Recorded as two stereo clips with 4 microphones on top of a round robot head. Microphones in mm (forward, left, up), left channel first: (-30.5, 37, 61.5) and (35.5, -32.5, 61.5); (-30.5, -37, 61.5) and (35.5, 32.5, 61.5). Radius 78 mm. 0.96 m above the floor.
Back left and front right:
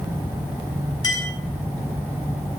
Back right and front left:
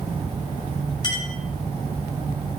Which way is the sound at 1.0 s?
175° right.